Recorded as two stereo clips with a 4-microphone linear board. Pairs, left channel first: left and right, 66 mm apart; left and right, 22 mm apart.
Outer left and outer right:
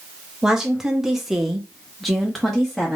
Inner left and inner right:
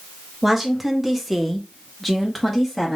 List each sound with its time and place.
0.4 s a woman speaking: 10° right (ahead or behind), 0.9 m; by 3.0 s 5° left (ahead or behind), 1.0 m